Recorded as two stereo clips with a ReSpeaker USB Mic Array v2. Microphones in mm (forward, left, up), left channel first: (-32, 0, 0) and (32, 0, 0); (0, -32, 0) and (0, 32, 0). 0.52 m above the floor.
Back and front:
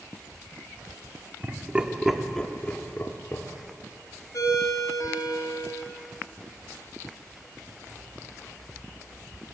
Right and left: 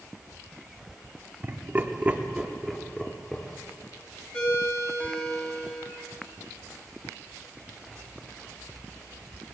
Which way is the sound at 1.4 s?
50° left.